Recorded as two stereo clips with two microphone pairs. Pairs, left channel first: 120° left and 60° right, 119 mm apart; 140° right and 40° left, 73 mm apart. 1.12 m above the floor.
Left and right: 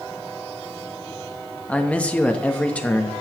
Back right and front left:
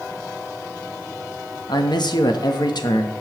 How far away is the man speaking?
About 1.1 m.